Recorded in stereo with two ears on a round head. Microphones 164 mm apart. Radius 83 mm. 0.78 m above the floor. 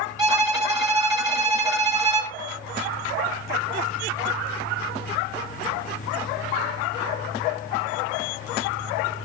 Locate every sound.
0.2 s a violin: 20° right (ahead or behind), 1.8 m